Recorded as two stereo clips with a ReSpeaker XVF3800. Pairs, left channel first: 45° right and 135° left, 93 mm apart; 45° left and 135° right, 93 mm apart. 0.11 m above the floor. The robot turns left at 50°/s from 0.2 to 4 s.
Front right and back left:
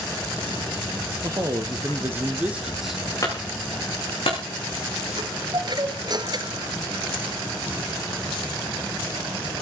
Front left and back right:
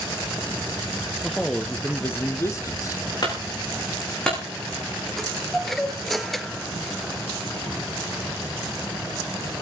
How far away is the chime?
About 1.3 m.